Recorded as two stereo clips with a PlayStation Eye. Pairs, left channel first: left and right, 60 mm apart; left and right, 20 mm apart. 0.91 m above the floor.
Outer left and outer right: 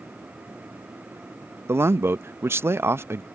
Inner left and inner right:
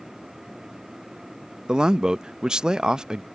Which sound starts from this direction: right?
A man speaking, at 1.7 s.